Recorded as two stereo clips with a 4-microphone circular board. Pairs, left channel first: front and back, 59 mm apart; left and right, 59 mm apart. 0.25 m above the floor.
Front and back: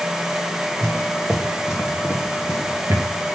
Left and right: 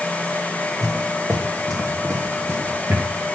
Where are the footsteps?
90° right, 2.5 m; by 3.1 s 155° right, 1.2 m.